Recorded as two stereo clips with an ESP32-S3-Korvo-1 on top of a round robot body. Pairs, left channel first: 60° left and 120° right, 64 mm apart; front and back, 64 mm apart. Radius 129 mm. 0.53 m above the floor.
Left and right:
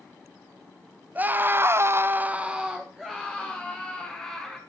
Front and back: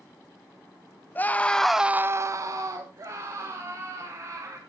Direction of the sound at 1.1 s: 55° right.